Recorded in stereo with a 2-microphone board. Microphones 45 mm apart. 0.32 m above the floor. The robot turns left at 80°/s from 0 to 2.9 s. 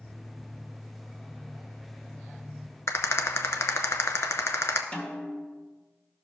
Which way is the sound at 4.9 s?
30° left (ahead or behind).